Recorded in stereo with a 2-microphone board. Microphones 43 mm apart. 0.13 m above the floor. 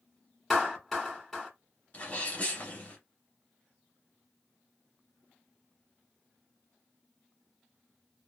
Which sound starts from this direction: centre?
A clap, at 0.5 s.